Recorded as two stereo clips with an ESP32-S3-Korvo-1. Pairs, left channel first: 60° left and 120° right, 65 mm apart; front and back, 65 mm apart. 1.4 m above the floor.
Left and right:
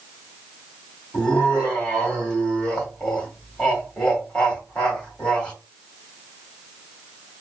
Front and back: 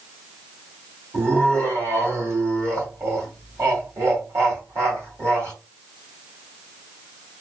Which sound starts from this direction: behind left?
Laughter, at 1.1 s.